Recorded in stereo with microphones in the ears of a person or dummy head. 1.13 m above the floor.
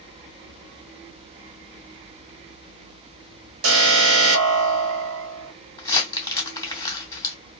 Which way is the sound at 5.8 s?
15° left (ahead or behind).